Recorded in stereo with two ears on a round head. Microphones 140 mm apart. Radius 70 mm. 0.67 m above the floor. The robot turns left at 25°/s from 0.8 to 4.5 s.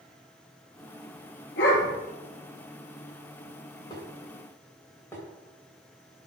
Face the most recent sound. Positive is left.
turn(degrees=15)  # may be behind; listen again after turning